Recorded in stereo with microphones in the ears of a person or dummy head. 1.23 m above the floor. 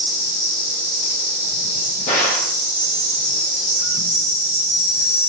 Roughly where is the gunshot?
Left.